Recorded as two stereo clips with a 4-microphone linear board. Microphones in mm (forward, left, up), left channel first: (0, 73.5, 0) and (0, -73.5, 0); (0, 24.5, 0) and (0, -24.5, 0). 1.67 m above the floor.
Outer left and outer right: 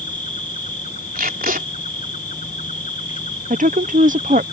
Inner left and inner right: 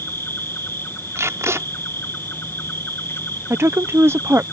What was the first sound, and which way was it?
An insect, 60° left (ahead or behind).